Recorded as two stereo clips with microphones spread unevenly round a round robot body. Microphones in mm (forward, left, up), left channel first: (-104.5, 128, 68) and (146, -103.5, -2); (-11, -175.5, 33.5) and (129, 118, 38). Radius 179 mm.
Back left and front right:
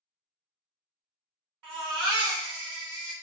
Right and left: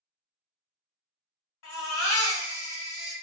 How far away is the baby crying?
About 1.4 m.